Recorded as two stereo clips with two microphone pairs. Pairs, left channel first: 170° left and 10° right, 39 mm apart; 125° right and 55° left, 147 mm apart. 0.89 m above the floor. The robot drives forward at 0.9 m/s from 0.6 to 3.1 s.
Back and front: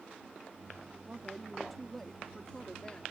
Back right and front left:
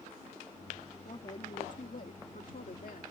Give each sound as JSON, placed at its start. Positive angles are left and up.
{"t": 1.1, "sound": "a woman speaking", "azimuth_deg": -85}